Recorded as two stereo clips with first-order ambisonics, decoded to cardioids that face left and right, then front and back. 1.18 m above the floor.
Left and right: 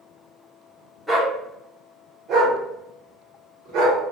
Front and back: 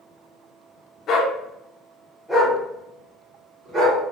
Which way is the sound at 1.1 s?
10° right.